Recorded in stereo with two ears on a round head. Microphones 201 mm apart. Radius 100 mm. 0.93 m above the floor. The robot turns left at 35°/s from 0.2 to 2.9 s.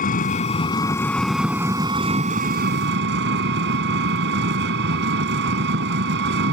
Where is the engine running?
40° left; by 6.5 s 55° right.